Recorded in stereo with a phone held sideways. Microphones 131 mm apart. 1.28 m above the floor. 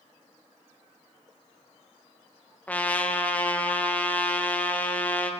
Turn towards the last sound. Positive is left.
turn(degrees=10)  # may be behind; listen again after turning